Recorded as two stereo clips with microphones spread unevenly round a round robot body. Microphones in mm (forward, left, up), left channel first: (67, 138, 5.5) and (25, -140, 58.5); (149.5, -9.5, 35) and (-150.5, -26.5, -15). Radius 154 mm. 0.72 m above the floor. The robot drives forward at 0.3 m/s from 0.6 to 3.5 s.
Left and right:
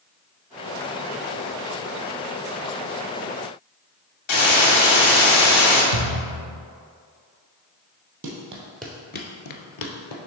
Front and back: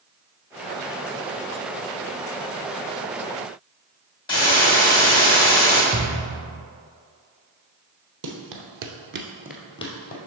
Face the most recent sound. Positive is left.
turn(degrees=60)